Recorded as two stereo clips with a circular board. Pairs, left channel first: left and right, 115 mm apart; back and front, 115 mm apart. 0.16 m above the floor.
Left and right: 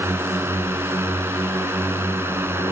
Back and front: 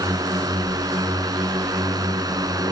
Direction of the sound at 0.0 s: 30° right.